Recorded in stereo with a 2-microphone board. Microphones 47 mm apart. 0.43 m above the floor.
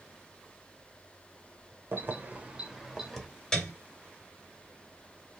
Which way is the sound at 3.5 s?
10° left (ahead or behind).